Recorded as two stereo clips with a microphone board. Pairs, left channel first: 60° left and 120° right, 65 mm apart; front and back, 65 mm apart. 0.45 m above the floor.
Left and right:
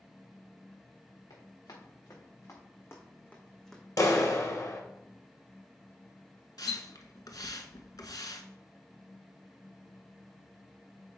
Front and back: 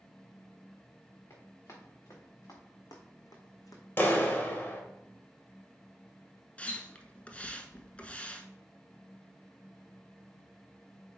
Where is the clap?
50° left, 1.4 m.